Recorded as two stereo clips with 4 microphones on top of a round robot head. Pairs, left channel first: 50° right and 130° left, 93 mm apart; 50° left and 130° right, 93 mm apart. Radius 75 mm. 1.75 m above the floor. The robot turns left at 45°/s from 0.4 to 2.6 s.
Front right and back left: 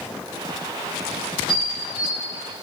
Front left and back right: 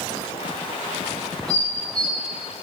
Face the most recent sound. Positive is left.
turn(degrees=80)